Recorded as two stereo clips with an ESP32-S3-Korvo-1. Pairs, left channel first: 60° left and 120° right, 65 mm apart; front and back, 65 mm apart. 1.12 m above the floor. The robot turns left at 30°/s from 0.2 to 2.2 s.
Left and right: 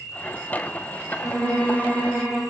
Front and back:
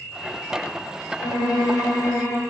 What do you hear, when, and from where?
1.2 s a violin: 5° right, 1.5 m; by 2.4 s 35° right, 1.5 m